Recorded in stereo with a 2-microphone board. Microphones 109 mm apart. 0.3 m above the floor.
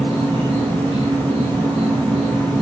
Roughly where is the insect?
Right.